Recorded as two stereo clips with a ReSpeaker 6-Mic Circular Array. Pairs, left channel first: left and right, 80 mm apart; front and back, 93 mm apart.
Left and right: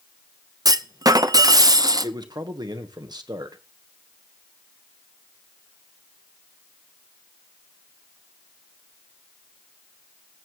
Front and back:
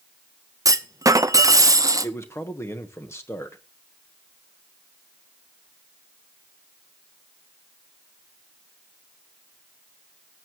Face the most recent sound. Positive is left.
turn(degrees=-60)